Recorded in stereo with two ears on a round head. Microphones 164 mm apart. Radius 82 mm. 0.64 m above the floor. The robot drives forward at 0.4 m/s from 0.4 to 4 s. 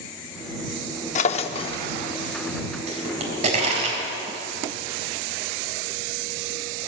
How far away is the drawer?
About 0.5 m.